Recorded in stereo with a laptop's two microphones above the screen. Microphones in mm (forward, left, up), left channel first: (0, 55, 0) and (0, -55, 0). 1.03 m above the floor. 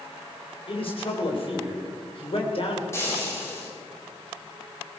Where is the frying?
25° left (ahead or behind), 5.5 m.